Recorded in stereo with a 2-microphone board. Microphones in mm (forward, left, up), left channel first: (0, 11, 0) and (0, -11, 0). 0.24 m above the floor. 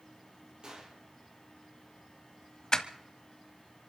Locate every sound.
0.6 s a gunshot: 45° right (ahead or behind), 5.5 m
2.7 s crushing: 30° left (ahead or behind), 1.0 m